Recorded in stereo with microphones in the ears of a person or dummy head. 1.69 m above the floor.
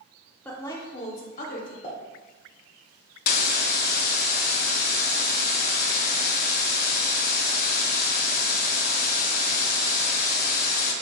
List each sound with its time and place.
0.5 s a woman speaking: 5° left (ahead or behind), 0.8 m; by 1.7 s 60° left (ahead or behind), 1.1 m
1.8 s a pop: 35° left (ahead or behind), 0.9 m
3.3 s a hiss: 50° left (ahead or behind), 0.6 m